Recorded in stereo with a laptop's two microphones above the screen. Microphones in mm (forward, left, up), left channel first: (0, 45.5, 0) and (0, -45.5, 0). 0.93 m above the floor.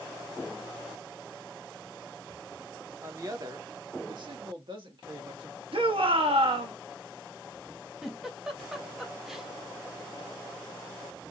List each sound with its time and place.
3.0 s a woman speaking: 35° right (ahead or behind), 1.1 m; by 5.6 s 65° right (ahead or behind), 2 m
5.7 s a shout: 75° right (ahead or behind), 1.2 m
8.0 s a giggle: 5° right (ahead or behind), 0.7 m